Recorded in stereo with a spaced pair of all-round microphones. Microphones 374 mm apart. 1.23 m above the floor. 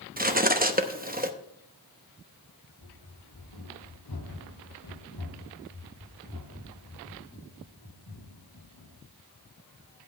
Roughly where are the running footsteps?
Left.